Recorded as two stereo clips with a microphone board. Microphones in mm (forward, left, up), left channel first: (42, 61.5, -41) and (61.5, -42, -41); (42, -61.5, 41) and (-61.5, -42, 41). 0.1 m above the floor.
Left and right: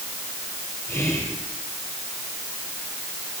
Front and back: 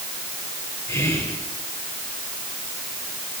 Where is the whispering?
45° left, 3 m.